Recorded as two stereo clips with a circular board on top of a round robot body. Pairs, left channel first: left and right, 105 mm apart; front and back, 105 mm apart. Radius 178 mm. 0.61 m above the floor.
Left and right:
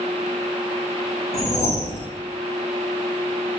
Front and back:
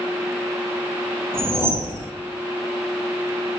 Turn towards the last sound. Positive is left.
turn(degrees=80)